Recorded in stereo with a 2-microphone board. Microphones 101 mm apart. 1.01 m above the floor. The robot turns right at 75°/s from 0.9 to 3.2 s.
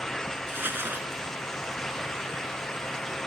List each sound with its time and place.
0.5 s crumpling: 25° right (ahead or behind); by 1.2 s centre (ahead or behind)